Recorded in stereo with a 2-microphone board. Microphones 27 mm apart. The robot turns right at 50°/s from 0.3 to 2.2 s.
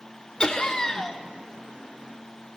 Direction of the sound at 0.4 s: 110° left.